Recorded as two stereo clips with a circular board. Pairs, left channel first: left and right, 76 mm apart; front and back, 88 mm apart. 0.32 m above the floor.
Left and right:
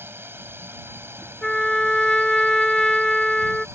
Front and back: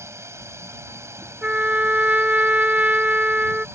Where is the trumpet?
155° left.